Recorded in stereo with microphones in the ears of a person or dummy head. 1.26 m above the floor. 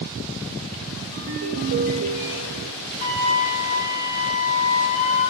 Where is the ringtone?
75° right (ahead or behind), 3.5 m.